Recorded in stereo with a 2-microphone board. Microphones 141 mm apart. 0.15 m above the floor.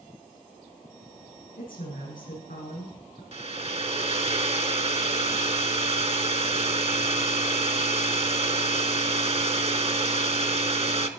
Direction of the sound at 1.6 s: 80° left.